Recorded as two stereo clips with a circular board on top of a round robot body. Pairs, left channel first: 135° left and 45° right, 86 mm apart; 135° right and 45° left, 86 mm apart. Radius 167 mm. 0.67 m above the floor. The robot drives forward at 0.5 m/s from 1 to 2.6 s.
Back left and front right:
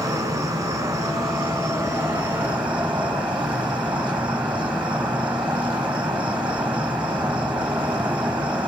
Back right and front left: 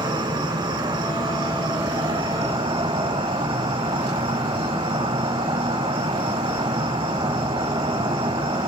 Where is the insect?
10° left, 1.3 m; by 8.7 s 30° left, 0.7 m.